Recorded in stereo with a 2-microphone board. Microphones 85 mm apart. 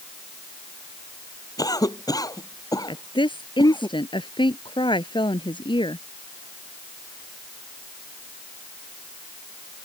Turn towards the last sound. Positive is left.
turn(degrees=85)